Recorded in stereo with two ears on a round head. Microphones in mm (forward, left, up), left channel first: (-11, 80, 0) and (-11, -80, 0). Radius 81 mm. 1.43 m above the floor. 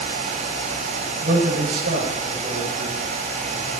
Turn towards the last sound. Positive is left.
turn(degrees=-40)  # may be behind; listen again after turning